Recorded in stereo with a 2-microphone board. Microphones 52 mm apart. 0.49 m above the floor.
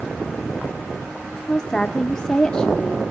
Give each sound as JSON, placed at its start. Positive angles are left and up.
{"t": 1.5, "sound": "a woman speaking", "side_deg": 15, "distance_m": 0.8}